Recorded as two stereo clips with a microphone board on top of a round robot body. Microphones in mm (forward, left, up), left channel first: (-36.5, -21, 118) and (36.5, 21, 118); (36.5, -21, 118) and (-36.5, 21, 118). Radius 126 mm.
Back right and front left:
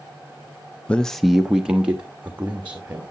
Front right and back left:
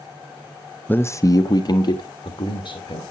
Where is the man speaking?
85° right, 0.6 m; by 3.0 s 40° right, 1.8 m.